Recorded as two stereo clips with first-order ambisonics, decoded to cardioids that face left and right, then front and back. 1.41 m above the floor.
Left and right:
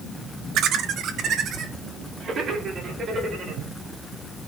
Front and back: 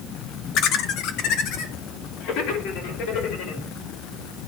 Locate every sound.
0.6 s laughter: 45° right, 0.9 m; by 3.6 s 25° right, 3.5 m